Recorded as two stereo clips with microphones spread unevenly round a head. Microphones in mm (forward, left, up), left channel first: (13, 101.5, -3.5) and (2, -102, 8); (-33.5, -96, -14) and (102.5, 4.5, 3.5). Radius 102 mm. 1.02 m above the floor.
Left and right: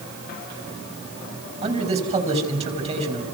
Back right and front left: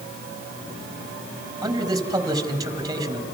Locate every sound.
1.6 s a man speaking: 30° right, 6 m